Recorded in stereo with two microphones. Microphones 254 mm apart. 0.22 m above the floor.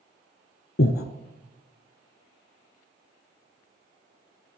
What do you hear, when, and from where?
0.8 s breathing: 60° left (ahead or behind), 0.6 m